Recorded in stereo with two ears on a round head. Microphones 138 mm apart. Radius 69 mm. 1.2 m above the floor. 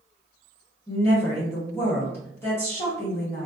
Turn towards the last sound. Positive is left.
turn(degrees=15)  # may be behind; listen again after turning